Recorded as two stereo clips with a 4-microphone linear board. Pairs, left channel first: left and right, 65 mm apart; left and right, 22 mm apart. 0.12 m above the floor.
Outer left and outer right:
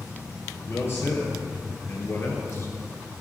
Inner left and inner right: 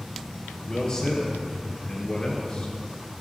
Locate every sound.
0.7 s a man speaking: 40° left (ahead or behind), 3 m